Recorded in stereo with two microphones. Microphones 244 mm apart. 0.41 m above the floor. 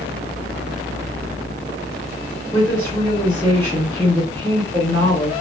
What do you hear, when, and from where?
2.5 s a woman speaking: 10° left (ahead or behind), 1.8 m